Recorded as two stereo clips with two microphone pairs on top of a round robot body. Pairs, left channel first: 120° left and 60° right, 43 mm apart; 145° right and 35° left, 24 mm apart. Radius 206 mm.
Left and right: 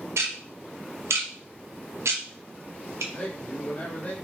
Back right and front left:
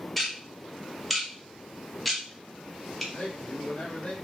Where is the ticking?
65° right, 0.6 m.